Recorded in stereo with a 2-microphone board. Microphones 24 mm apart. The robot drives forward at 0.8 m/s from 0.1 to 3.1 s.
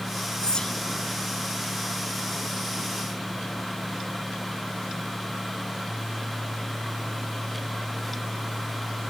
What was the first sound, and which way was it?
Whispering, 35° left (ahead or behind).